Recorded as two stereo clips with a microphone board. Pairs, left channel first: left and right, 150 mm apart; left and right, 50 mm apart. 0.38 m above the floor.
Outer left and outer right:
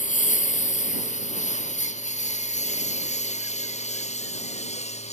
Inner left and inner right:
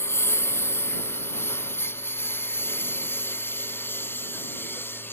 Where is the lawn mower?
60° left (ahead or behind); by 5.1 s 50° left (ahead or behind).